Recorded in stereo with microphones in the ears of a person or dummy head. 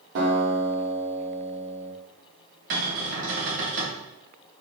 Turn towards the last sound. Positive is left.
turn(degrees=-65)  # may be behind; listen again after turning